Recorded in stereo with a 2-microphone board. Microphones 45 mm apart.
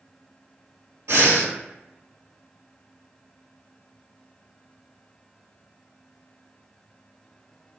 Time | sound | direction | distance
1.1 | breathing | 85° right | 0.9 m